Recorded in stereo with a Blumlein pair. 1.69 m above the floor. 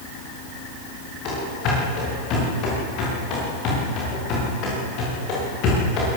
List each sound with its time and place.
1.2 s running footsteps: 35° left, 9.5 m